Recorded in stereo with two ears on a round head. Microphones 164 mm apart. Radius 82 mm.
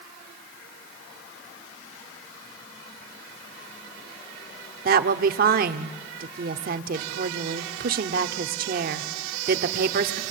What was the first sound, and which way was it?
A woman speaking, 50° right (ahead or behind).